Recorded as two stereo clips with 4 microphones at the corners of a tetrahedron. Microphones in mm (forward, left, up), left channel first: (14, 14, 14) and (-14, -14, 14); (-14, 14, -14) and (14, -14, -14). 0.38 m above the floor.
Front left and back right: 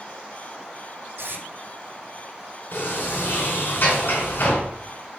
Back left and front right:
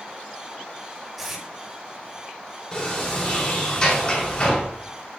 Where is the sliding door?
70° left, 4.5 m.